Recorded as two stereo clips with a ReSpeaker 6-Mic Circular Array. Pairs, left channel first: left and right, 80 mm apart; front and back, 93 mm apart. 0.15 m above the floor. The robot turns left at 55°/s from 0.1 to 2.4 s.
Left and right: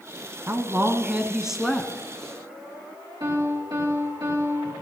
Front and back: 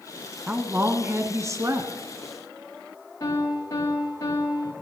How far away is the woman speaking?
About 1.3 m.